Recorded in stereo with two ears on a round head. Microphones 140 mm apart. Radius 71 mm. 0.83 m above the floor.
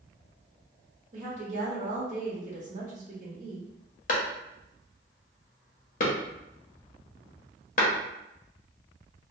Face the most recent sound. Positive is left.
turn(degrees=50)  # may be behind; listen again after turning